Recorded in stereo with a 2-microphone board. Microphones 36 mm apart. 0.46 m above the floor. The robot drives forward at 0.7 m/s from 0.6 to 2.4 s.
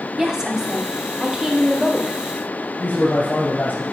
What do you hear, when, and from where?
0.2 s a woman speaking: 15° right (ahead or behind), 1.0 m; by 2.2 s 10° right (ahead or behind), 1.6 m
2.8 s a man speaking: 60° left (ahead or behind), 2.5 m